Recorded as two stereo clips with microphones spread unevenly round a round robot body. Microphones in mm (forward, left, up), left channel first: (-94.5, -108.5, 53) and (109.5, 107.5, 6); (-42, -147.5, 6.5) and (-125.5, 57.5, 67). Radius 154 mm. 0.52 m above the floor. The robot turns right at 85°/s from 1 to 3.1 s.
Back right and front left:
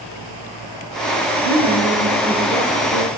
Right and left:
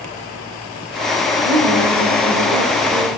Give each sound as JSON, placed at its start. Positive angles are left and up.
{"t": 1.4, "sound": "a woman speaking", "azimuth_deg": 45, "distance_m": 1.2}